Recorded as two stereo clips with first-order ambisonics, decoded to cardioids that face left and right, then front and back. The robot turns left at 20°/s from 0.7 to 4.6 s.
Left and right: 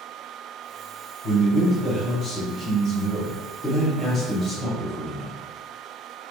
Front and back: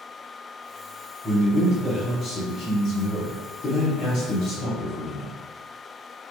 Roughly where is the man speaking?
Ahead left.